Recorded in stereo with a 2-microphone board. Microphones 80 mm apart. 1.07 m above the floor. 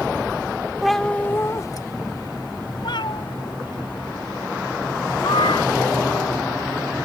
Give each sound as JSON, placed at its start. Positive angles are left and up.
{"t": 0.8, "sound": "a cat meowing", "side_deg": -5}